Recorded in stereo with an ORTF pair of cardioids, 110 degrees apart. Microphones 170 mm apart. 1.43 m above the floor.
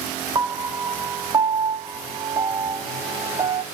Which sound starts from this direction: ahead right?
A piano, at 0.3 s.